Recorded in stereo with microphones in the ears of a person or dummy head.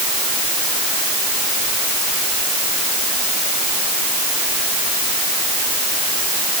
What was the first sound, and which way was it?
Only background noise.